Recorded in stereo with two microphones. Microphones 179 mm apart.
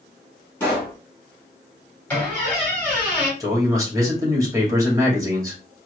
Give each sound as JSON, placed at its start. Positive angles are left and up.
{"t": 0.6, "sound": "a pop", "side_deg": 10, "distance_m": 2.5}
{"t": 2.1, "sound": "a squeak", "side_deg": 10, "distance_m": 2.5}
{"t": 3.4, "sound": "a man speaking", "side_deg": -20, "distance_m": 2.0}